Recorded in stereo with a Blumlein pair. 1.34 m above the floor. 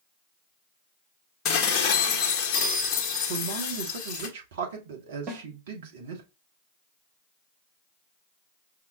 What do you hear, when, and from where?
1.4 s dishes clattering: 25° left, 1.3 m
3.3 s a man speaking: 55° right, 1.6 m
5.3 s a snare drum: 35° right, 1.7 m